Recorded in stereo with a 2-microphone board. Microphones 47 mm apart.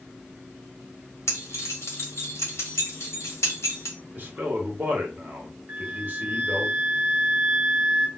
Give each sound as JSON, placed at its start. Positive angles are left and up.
{"t": 1.3, "sound": "keys jangling", "side_deg": 85, "distance_m": 1.3}
{"t": 4.1, "sound": "a man speaking", "side_deg": -40, "distance_m": 1.2}
{"t": 5.7, "sound": "a flute", "side_deg": -25, "distance_m": 1.2}